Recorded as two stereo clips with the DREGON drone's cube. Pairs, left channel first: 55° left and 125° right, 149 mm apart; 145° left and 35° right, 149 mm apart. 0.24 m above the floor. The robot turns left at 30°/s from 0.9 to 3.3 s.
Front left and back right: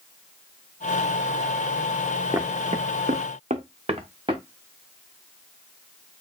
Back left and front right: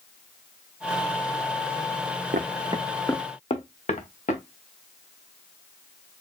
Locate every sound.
2.3 s footsteps: 50° right, 0.8 m; by 4.4 s straight behind, 2.0 m